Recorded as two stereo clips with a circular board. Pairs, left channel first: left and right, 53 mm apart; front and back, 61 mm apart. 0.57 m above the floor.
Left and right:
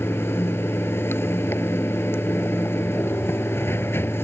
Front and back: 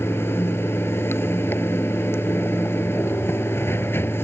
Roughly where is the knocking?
I don't hear knocking.